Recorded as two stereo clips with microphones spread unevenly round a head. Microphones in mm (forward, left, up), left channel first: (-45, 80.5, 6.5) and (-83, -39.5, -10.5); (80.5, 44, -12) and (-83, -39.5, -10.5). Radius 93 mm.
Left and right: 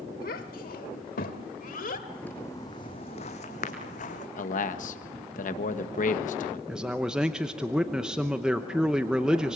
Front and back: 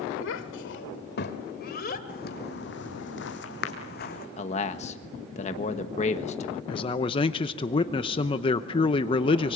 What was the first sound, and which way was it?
A child speaking, 45° left.